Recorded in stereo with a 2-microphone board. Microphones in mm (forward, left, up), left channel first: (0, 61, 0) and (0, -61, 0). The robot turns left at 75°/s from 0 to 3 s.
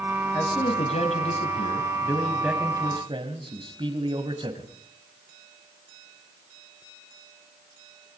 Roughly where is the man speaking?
Behind left.